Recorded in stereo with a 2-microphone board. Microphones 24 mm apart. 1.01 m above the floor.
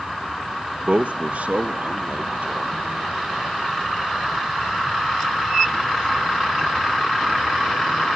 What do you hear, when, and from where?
0.9 s a man speaking: 55° right (ahead or behind), 0.7 m; by 3.2 s 80° right, 3.5 m